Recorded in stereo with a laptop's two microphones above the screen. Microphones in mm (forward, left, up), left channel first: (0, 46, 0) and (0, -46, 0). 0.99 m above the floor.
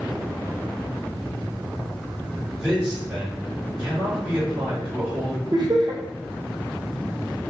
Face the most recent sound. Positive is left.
turn(degrees=-55)  # may be behind; listen again after turning